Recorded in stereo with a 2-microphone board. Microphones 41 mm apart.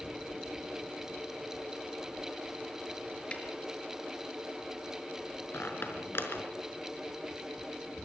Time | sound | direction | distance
3.3 | a snare drum | 30° left (ahead or behind) | 4.5 m
5.5 | a squeak | 70° left (ahead or behind) | 4.5 m